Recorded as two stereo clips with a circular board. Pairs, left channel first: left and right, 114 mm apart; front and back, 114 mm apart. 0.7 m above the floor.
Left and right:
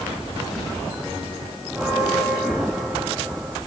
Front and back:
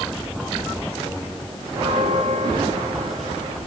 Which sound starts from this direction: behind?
A bell, at 1.7 s.